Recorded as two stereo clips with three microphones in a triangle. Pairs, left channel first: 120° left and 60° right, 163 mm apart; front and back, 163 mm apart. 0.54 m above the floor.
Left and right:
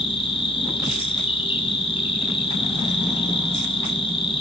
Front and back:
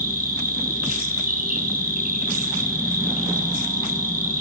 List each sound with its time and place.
0.0 s an insect: 170° left, 6.5 m